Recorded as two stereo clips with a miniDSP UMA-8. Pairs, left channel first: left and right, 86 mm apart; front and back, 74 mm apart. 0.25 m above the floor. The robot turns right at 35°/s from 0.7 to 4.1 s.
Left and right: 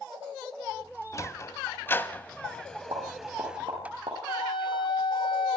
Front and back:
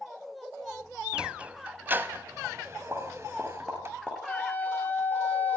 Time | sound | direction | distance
1.1 | a sliding door | 110° left | 1.0 m
2.9 | a pop | 115° right | 9.5 m
4.3 | a flute | 65° left | 2 m